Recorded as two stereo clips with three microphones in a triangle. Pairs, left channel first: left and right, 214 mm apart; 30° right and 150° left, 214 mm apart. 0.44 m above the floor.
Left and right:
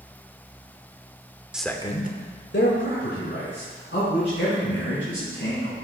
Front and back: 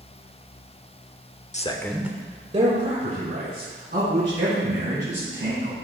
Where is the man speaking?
5° right, 0.9 m; by 5.7 s 115° left, 5.5 m.